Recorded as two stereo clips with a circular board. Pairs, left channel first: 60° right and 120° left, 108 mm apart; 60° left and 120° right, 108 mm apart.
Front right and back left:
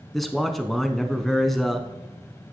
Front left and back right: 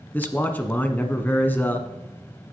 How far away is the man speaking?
About 1.1 m.